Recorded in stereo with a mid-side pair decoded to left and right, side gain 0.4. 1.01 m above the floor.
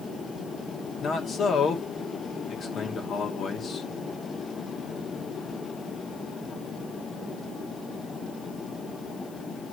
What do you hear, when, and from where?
1.0 s a man speaking: 65° left, 2.5 m